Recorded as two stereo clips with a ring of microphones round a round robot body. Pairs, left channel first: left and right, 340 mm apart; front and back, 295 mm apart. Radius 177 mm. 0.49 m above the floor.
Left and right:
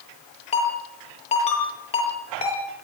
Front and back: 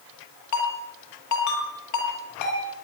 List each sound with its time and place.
0.5 s a ringtone: 20° left, 9.5 m